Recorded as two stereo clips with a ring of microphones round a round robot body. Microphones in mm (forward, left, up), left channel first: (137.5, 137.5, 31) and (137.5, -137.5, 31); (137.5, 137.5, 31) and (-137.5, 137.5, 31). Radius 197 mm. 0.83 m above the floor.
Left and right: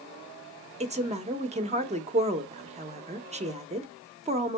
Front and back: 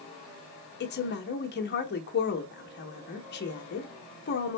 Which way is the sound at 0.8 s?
30° right.